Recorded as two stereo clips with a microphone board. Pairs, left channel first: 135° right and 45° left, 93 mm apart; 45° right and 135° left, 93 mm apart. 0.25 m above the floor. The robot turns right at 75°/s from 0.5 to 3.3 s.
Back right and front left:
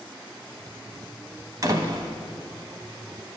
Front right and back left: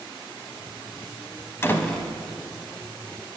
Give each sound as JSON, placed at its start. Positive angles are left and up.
{"t": 1.6, "sound": "a door slam", "azimuth_deg": 10, "distance_m": 1.0}